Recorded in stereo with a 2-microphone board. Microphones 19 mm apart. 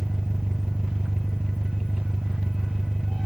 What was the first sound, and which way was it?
An engine running, 65° right (ahead or behind).